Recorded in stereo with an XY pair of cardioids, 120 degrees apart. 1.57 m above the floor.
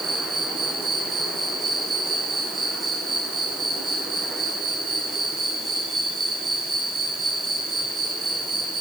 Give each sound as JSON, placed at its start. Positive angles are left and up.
{"t": 0.0, "sound": "an insect", "azimuth_deg": -30, "distance_m": 7.0}